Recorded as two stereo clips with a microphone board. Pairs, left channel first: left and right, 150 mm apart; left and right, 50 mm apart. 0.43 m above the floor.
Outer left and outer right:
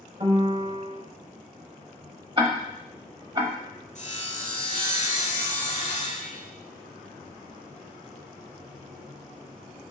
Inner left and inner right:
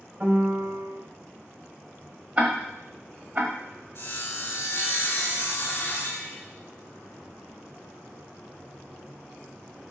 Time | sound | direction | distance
0.2 | a piano | 40° right (ahead or behind) | 1.3 m
2.4 | ticking | 30° right (ahead or behind) | 1.1 m
4.0 | sawing | 50° left (ahead or behind) | 1.4 m